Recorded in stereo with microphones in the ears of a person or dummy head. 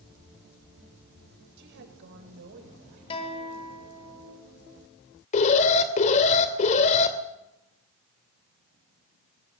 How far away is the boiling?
No boiling in this recording.